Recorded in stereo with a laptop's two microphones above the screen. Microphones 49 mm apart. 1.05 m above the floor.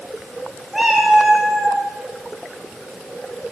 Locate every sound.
0.7 s a cat meowing: 10° right (ahead or behind), 0.5 m